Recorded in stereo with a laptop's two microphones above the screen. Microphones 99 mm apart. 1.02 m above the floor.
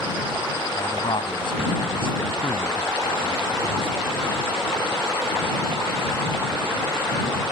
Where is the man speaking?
55° left (ahead or behind).